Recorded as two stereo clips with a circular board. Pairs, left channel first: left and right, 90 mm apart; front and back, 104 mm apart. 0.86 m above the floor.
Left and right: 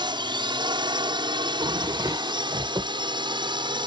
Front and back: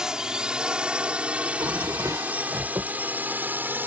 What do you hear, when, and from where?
0.0 s a drone: 95° right; by 3.9 s 110° right
1.4 s a drawer: 125° right